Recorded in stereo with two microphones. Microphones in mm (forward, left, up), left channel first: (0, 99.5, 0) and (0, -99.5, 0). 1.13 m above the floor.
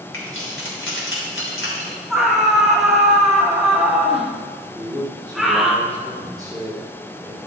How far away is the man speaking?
About 2.0 m.